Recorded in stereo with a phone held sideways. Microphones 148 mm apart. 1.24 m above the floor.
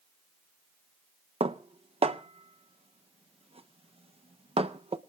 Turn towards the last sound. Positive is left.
turn(degrees=-40)  # may be behind; listen again after turning